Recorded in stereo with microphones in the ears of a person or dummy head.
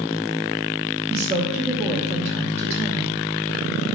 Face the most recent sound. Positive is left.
turn(degrees=-15)  # may be behind; listen again after turning